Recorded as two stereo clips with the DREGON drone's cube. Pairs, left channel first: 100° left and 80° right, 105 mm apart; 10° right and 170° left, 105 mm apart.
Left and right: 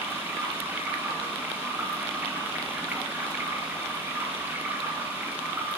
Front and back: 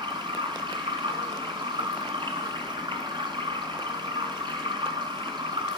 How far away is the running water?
About 2.5 m.